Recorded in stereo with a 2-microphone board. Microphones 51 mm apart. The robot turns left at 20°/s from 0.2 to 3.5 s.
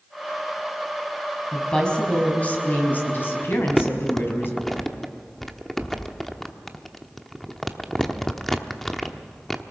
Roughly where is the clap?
No clap in this recording.